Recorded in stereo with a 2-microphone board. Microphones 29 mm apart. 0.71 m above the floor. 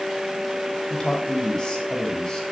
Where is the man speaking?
25° left (ahead or behind), 4 m.